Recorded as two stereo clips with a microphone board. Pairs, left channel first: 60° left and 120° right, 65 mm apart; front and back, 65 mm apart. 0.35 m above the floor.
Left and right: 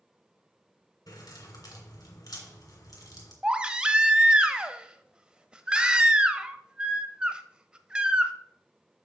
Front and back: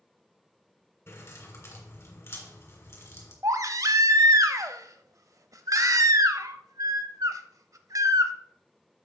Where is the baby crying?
165° left, 0.6 m.